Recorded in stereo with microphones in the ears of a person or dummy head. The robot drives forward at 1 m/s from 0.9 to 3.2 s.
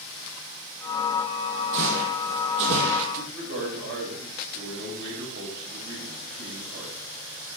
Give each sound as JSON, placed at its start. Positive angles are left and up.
{"t": 1.7, "sound": "footsteps", "side_deg": -65, "distance_m": 3.0}
{"t": 3.1, "sound": "a man speaking", "side_deg": -60, "distance_m": 6.0}